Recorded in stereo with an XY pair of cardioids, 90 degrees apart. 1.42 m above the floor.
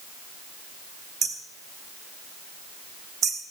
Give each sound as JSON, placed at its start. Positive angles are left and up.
{"t": 1.2, "sound": "hammering", "azimuth_deg": -65, "distance_m": 3.0}